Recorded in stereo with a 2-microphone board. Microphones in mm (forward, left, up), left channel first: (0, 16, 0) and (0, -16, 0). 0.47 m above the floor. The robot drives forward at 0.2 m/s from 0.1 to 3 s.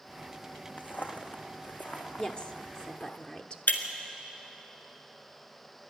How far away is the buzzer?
I don't hear a buzzer.